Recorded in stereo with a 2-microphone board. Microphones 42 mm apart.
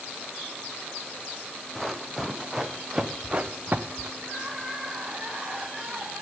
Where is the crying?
25° right (ahead or behind), 8.5 m.